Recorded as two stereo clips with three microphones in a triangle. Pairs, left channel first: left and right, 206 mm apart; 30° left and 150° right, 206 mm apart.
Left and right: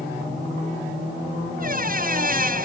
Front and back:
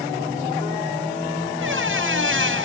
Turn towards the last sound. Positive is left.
turn(degrees=-135)